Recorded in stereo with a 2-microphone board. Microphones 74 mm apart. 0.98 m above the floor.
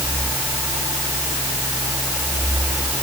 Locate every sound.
Only background noise.